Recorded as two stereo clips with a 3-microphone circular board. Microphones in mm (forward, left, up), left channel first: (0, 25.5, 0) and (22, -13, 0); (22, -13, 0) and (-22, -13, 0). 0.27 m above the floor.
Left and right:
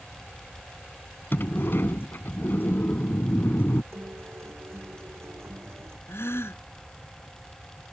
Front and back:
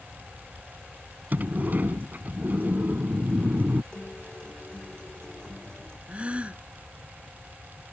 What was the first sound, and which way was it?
A sliding door, 145° left.